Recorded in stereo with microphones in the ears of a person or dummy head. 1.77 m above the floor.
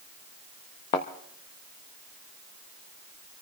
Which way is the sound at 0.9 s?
20° left (ahead or behind).